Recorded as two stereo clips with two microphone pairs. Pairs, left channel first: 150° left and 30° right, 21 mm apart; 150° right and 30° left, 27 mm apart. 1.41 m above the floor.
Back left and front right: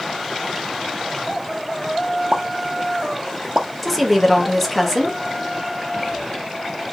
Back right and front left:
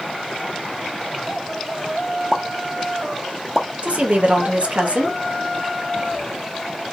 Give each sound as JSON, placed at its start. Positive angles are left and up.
{"t": 2.3, "sound": "a pop", "azimuth_deg": -50, "distance_m": 0.9}
{"t": 3.8, "sound": "a woman speaking", "azimuth_deg": 65, "distance_m": 1.7}